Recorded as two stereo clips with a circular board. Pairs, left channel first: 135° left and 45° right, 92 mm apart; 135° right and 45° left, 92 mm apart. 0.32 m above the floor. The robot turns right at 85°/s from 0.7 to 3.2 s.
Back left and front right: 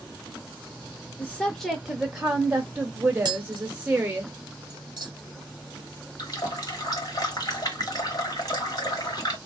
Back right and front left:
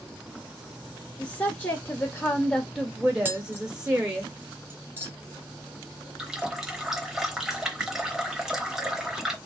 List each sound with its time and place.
1.2 s a woman speaking: 175° left, 0.9 m; by 4.2 s 15° right, 0.9 m
3.2 s tapping: 20° right, 0.7 m
6.2 s a running tap: 125° left, 0.8 m